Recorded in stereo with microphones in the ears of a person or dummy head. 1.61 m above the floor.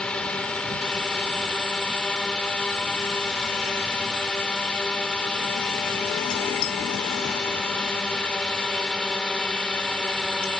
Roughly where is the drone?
Centre.